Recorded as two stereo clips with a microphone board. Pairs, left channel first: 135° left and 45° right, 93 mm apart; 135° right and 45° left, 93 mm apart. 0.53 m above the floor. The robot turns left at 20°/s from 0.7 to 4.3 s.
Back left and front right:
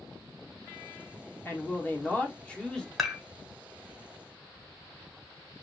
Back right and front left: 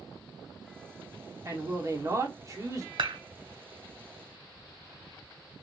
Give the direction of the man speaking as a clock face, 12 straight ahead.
9 o'clock.